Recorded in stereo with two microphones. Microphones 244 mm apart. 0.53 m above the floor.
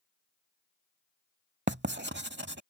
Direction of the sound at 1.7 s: 50° right (ahead or behind).